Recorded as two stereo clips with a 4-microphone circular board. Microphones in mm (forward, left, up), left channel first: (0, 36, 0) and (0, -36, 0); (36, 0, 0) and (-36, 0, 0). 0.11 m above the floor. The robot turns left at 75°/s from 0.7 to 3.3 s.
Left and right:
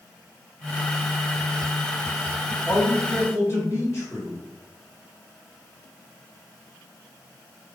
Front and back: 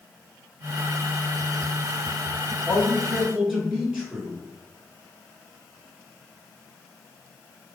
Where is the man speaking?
140° left, 1.4 m; by 4.4 s 90° left, 1.4 m.